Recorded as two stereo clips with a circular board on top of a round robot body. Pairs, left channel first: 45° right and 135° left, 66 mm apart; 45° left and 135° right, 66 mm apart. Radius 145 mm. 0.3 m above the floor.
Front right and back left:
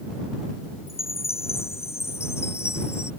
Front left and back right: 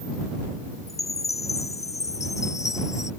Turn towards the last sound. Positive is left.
turn(degrees=5)